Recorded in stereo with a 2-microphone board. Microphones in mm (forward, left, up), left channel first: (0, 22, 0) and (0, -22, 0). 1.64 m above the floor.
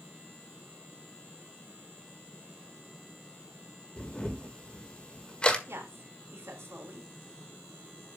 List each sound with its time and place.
4.0 s a camera shutter: 20° left (ahead or behind), 1.4 m
5.7 s a woman speaking: 90° right, 3.5 m